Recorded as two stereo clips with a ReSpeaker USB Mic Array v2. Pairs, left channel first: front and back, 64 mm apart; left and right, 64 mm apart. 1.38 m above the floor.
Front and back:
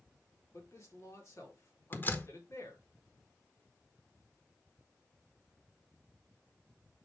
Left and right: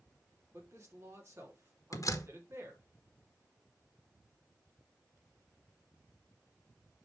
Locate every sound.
0.5 s a man speaking: 40° right, 2.5 m
1.9 s a door slam: 60° left, 1.0 m